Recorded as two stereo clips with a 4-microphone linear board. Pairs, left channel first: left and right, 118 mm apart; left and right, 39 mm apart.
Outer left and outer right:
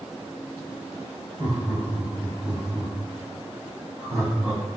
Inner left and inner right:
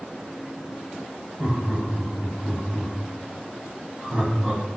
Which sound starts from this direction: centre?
Laughter, at 1.4 s.